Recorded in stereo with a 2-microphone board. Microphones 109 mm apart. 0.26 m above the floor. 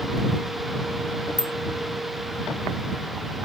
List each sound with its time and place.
1.4 s a bicycle bell: 40° right (ahead or behind)